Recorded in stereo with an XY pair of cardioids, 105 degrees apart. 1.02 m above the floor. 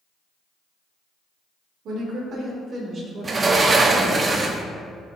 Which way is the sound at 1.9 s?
65° right.